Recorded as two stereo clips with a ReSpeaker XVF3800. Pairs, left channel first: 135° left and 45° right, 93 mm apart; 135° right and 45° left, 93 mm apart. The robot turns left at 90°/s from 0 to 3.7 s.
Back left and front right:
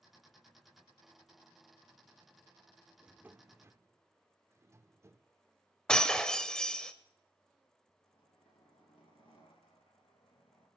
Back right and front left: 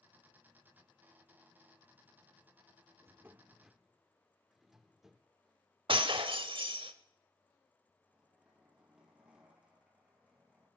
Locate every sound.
3.0 s a drawer: 25° left, 0.5 m; by 5.3 s 35° right, 0.5 m
5.9 s breaking glass: 55° left, 0.9 m
8.0 s a zipper: 125° left, 4.5 m